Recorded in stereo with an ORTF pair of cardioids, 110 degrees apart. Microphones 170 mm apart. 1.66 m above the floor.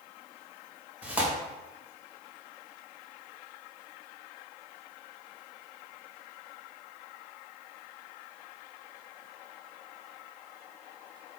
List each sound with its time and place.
1.0 s tearing paper: 5° right, 1.5 m